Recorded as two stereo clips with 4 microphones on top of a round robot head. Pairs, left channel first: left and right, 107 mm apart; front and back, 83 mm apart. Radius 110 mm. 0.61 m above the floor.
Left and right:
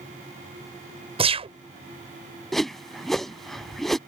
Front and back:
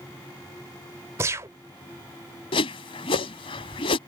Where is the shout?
I don't hear a shout.